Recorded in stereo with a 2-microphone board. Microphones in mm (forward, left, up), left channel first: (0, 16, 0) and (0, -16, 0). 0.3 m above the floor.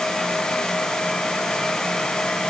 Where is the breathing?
No breathing in this recording.